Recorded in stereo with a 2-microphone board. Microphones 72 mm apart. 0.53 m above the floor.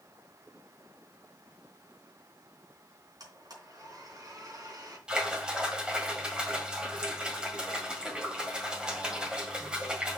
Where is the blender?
55° right (ahead or behind), 3.5 m.